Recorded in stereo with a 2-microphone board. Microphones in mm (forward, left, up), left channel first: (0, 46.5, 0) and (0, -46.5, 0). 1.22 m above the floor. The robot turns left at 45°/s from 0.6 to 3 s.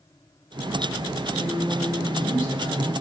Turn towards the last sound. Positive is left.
turn(degrees=115)